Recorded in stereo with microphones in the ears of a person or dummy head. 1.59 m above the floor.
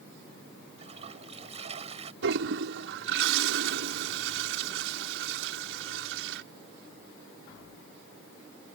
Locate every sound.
0.8 s a toilet flushing: 40° right (ahead or behind)
2.2 s a toilet flushing: 75° right (ahead or behind)